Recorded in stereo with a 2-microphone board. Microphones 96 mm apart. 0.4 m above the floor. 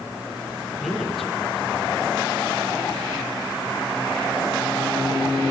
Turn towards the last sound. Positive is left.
turn(degrees=0)  # may be behind; listen again after turning